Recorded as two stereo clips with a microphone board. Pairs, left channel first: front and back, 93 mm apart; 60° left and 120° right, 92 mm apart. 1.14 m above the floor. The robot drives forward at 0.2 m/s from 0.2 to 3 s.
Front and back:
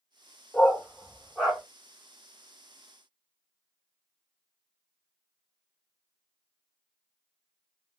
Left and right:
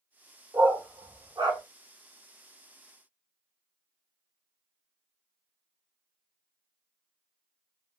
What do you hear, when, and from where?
0.5 s a dog barking: 85° right, 1.2 m; by 1.6 s 95° right, 1.2 m